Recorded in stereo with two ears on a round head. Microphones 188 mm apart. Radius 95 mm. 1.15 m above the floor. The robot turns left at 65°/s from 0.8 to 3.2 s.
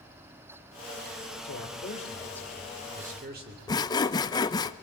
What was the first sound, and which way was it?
A man speaking, 70° left.